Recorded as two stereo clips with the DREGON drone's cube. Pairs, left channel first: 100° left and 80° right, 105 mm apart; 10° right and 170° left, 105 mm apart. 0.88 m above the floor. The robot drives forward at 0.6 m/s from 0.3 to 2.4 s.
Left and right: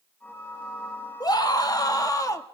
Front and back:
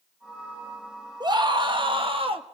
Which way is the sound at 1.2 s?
135° left.